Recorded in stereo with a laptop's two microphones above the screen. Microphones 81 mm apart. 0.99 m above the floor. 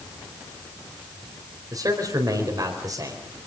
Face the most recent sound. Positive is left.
turn(degrees=-50)  # may be behind; listen again after turning